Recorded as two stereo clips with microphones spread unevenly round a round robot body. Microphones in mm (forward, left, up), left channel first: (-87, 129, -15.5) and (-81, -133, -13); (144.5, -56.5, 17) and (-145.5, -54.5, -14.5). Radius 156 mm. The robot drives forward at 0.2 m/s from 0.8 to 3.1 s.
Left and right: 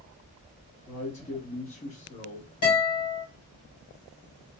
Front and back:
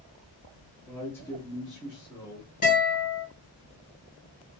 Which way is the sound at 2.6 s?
65° left.